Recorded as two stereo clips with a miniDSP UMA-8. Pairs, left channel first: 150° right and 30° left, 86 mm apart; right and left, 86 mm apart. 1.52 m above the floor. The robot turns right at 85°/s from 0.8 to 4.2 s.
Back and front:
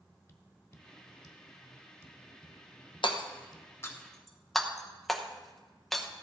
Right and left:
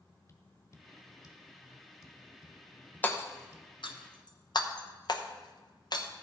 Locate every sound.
0.3 s tapping: 110° right, 1.3 m; by 3.7 s 135° left, 1.3 m
3.0 s hammering: 160° right, 0.9 m; by 6.1 s 60° right, 0.9 m